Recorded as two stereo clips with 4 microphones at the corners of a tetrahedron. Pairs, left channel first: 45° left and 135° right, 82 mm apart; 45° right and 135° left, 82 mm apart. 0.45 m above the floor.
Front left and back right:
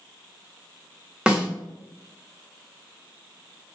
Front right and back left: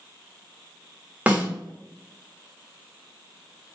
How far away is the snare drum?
About 1.1 m.